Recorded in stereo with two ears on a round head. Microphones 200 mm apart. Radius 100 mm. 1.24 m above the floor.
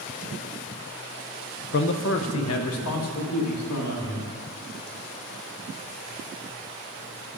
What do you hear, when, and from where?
1.7 s a man speaking: 50° left (ahead or behind), 0.6 m; by 4.3 s 80° left, 2 m